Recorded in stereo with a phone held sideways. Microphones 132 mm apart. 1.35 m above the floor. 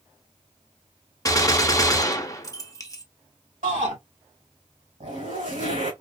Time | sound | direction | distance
1.2 | a gunshot | 25° left (ahead or behind) | 0.6 m
3.6 | a shout | 80° right | 2 m
5.0 | a zipper | 75° right (ahead or behind) | 2.5 m